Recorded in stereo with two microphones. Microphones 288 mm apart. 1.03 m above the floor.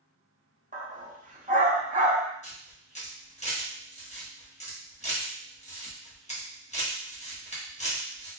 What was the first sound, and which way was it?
A dog barking, 30° right (ahead or behind).